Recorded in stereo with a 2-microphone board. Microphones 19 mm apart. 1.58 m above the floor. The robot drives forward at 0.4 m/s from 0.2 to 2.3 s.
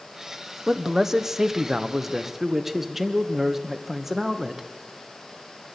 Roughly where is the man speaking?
Right.